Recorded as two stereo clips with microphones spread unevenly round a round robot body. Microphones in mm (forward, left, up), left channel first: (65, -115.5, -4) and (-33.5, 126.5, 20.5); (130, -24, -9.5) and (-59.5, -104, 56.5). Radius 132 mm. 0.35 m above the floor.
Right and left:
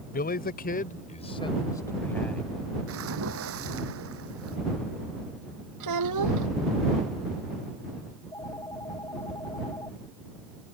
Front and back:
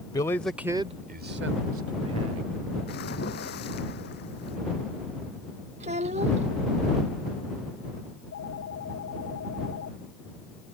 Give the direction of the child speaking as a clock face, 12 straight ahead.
7 o'clock.